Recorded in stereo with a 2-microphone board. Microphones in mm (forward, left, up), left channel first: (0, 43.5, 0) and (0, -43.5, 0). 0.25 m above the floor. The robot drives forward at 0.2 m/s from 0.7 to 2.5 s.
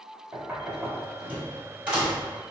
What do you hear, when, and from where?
0.3 s knocking: 15° right (ahead or behind), 1.0 m; by 2.3 s 10° right (ahead or behind), 1.2 m